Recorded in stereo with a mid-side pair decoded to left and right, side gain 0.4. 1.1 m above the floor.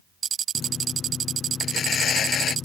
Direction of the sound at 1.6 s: 65° left.